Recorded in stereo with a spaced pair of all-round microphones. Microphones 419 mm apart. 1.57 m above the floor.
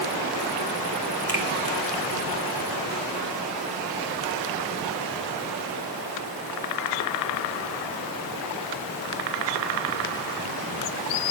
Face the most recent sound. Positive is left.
turn(degrees=-50)  # may be behind; listen again after turning